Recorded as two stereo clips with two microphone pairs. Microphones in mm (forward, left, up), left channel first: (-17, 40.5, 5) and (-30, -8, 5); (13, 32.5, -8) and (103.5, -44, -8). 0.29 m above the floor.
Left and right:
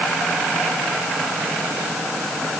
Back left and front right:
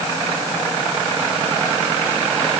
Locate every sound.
Only background noise.